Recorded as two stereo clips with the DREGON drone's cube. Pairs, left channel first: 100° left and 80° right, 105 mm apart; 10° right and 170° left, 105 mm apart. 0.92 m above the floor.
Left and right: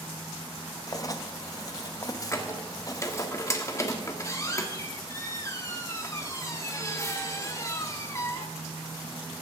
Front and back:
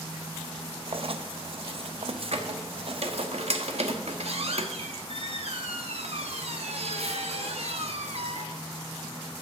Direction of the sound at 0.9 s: 150° left.